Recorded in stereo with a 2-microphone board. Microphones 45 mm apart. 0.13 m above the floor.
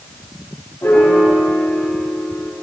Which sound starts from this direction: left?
A piano, at 0.8 s.